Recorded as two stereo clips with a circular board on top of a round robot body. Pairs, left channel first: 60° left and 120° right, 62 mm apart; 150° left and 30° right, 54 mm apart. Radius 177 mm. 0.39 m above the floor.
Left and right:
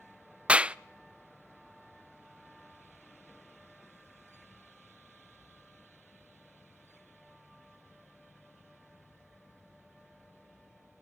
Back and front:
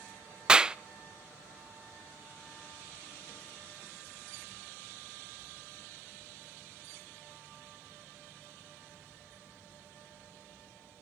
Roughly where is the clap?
Right.